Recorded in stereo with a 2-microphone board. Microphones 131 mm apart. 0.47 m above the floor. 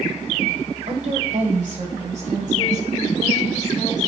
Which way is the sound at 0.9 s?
60° right (ahead or behind).